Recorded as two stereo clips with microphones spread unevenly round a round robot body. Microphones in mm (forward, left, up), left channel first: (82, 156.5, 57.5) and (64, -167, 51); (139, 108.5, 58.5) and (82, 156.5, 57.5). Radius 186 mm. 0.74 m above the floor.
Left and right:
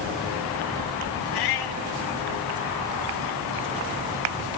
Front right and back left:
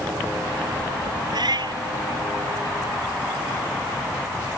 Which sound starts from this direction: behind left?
A cat meowing, at 1.3 s.